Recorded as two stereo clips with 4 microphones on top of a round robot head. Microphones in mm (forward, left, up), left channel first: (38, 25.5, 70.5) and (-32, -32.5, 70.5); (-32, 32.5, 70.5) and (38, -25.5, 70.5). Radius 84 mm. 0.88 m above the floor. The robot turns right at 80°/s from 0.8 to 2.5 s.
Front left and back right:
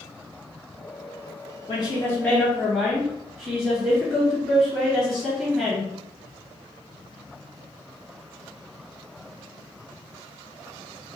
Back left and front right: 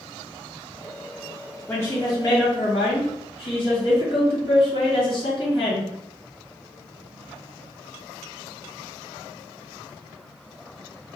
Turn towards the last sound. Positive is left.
turn(degrees=135)